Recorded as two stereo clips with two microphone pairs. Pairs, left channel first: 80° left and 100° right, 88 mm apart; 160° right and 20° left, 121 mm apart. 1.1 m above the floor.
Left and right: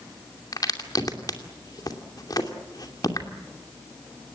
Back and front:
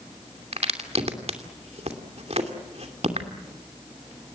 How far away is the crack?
About 2.5 m.